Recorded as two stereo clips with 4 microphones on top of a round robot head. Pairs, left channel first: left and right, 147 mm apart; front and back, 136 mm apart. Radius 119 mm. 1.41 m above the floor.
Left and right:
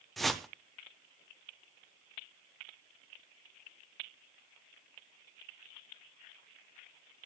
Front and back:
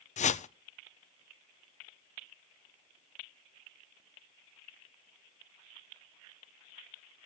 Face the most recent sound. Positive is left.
turn(degrees=0)